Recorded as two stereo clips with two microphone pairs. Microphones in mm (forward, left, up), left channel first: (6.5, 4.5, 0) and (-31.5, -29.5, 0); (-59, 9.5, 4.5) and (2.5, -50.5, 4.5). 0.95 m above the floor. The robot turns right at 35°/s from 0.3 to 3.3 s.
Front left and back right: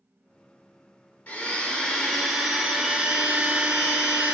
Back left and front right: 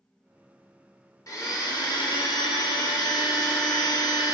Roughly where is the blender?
Left.